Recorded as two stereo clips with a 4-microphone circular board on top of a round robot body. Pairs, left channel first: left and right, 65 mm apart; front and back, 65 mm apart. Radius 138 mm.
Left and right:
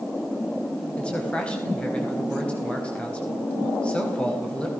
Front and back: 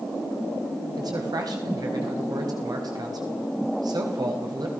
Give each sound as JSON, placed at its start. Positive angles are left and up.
{"t": 1.0, "sound": "a man speaking", "azimuth_deg": 165, "distance_m": 5.0}